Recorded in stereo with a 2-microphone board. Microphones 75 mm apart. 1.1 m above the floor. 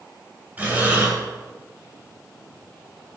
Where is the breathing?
25° right (ahead or behind), 3.5 m.